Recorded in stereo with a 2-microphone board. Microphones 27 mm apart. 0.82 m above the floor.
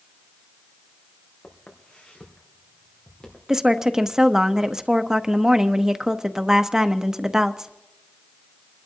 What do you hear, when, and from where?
1.4 s footsteps: 70° left (ahead or behind), 3 m; by 3.4 s 30° left (ahead or behind), 4 m
3.5 s a woman speaking: 20° right (ahead or behind), 0.7 m